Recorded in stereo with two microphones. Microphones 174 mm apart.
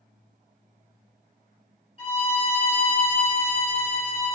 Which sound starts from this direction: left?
A violin, at 2.0 s.